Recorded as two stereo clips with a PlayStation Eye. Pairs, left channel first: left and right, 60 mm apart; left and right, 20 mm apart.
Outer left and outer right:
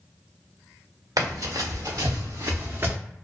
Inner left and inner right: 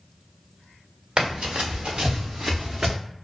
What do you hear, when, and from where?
1.2 s running footsteps: 85° right, 1.6 m; by 3.0 s 30° right (ahead or behind), 0.8 m